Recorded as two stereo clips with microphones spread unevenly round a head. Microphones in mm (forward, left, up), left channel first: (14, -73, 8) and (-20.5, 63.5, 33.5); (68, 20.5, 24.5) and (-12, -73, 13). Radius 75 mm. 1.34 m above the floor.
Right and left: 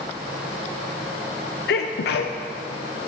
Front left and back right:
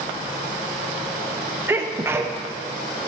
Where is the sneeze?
60° right, 0.5 m.